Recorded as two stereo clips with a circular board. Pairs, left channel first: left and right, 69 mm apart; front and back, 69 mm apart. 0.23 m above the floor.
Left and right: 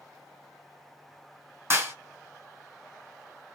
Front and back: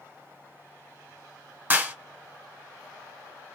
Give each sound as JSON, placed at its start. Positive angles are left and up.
{"t": 1.7, "sound": "a clap", "azimuth_deg": -125, "distance_m": 1.9}